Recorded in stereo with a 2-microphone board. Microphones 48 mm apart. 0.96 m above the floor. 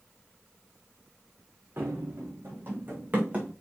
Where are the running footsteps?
50° right (ahead or behind), 3 m; by 3.5 s 25° right (ahead or behind), 3 m.